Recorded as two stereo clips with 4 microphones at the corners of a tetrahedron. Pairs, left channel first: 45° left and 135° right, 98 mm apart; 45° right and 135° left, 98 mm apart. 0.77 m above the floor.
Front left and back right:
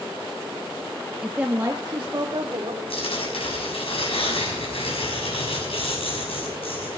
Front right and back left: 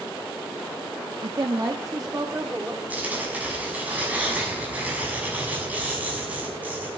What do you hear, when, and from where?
1.2 s a woman speaking: 140° left, 1.0 m; by 2.8 s 160° right, 2.5 m
2.9 s tearing paper: 60° left, 6 m